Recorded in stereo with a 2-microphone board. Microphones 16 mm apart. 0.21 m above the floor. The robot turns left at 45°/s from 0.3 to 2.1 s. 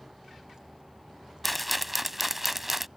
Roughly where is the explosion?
I don't hear an explosion.